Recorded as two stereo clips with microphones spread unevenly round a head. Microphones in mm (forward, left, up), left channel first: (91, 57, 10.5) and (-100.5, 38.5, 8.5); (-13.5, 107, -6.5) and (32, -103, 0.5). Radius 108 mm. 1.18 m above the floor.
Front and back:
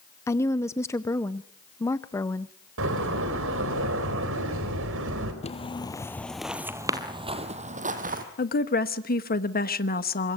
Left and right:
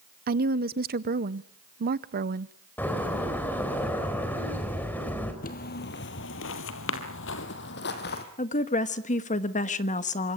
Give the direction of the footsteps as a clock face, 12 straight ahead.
10 o'clock.